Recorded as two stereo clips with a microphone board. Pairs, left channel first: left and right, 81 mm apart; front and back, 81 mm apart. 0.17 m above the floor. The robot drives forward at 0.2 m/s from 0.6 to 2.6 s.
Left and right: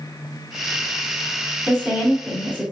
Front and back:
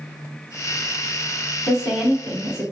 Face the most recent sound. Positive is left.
turn(degrees=-115)